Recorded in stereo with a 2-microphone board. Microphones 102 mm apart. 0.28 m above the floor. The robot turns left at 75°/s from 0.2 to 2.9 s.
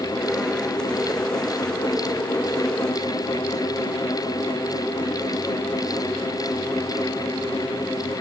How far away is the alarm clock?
No alarm clock in this recording.